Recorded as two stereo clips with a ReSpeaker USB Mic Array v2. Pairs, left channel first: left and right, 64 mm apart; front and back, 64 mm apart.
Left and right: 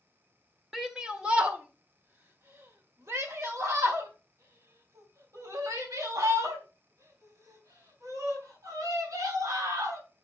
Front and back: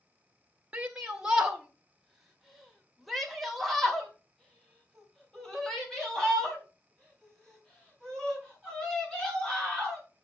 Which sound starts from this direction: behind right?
A shout, at 0.7 s.